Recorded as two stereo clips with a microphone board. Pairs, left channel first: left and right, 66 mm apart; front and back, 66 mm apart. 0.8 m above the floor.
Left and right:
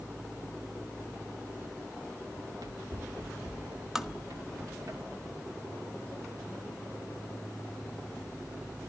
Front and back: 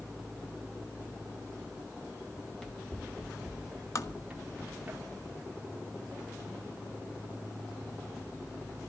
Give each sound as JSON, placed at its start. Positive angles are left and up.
{"t": 2.4, "sound": "running footsteps", "azimuth_deg": -80, "distance_m": 3.0}
{"t": 4.0, "sound": "tapping", "azimuth_deg": -5, "distance_m": 1.4}